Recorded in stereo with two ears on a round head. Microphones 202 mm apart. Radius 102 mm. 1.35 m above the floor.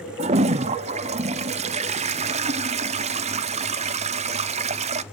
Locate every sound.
0.2 s a toilet flushing: 30° right (ahead or behind), 0.5 m